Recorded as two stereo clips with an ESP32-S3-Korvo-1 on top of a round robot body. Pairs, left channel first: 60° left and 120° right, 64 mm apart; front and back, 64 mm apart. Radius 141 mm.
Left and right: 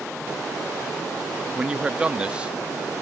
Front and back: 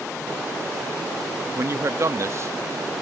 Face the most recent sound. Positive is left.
turn(degrees=170)